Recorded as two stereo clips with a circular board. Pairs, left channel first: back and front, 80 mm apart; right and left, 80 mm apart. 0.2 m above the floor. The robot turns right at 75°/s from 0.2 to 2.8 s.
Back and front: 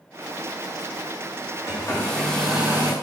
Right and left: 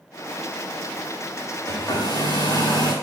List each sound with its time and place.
1.7 s a hair dryer: 150° right, 7.5 m; by 2.9 s 65° right, 7.5 m